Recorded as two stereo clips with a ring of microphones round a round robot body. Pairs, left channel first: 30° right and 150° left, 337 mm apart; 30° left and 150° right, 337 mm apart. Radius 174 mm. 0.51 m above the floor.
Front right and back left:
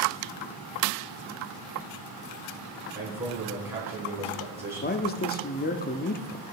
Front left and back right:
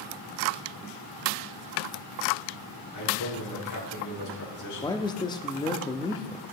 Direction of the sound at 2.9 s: 65° left.